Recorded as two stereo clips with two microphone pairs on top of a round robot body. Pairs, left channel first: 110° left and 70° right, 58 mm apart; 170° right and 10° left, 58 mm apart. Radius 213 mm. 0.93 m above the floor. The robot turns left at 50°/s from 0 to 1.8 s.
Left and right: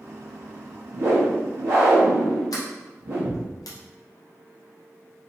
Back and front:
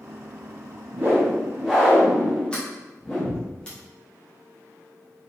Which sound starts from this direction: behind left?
A sliding door, at 2.5 s.